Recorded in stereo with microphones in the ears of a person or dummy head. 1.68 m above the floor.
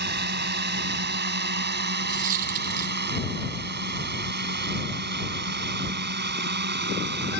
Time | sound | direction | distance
0.0 | a drone | 60° right (ahead or behind) | ?
2.1 | a dropped coin | 40° right (ahead or behind) | ?